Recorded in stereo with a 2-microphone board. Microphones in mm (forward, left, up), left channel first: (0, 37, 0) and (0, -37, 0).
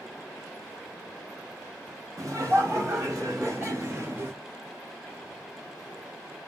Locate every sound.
2.2 s laughter: 45° right (ahead or behind), 1.5 m; by 4.4 s 30° right (ahead or behind), 1.1 m